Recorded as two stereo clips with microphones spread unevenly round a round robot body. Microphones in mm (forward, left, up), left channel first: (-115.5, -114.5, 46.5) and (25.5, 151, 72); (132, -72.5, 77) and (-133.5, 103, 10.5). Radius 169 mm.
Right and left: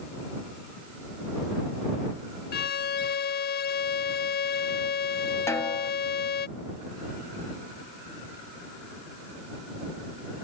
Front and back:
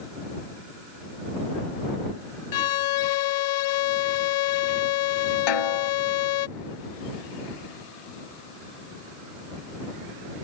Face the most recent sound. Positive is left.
turn(degrees=-35)